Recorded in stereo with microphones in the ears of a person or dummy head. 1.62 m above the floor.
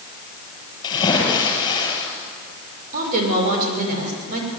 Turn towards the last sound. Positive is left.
turn(degrees=-45)  # may be behind; listen again after turning